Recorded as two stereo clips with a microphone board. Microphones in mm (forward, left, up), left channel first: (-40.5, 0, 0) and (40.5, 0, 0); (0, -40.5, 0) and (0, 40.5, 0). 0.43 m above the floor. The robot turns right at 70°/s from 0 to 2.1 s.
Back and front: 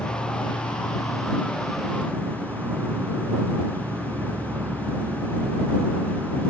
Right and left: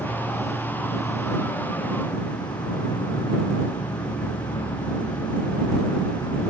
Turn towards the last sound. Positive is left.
turn(degrees=-65)